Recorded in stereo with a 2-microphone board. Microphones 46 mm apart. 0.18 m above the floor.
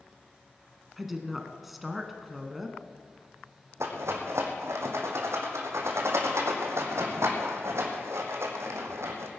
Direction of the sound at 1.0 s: 5° right (ahead or behind).